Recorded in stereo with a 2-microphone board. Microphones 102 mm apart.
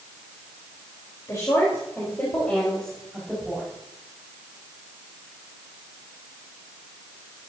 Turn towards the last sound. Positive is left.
turn(degrees=0)  # may be behind; listen again after turning